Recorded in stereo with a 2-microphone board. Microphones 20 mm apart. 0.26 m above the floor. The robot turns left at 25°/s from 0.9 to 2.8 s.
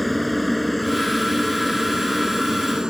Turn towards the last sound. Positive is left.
turn(degrees=-40)  # may be behind; listen again after turning